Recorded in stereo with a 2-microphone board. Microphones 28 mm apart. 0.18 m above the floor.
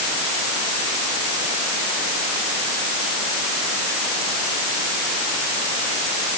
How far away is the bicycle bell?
I don't hear a bicycle bell.